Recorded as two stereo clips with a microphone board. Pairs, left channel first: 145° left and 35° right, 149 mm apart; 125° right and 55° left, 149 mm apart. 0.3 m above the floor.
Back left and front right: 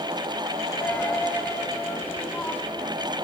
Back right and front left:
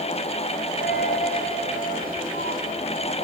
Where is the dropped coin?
135° right, 2.5 m.